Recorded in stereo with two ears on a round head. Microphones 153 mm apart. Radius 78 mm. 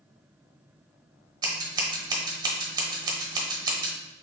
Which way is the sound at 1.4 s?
25° right (ahead or behind).